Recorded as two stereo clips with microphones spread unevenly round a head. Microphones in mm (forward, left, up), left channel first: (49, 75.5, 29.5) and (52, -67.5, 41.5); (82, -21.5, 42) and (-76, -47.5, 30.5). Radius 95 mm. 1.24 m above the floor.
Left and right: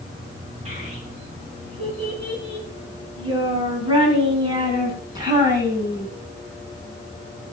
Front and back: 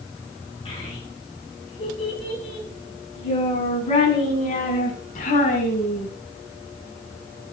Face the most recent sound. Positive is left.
turn(degrees=-25)